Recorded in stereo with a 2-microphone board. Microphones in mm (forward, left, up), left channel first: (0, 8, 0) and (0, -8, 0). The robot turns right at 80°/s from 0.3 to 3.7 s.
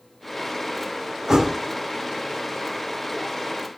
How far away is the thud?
About 2 m.